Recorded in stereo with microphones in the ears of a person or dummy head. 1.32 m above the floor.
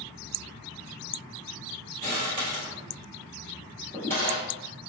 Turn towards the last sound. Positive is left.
turn(degrees=-20)  # may be behind; listen again after turning